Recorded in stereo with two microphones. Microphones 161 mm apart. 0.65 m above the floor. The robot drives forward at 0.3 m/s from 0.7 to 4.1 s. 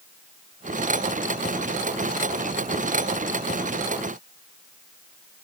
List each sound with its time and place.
Only background noise.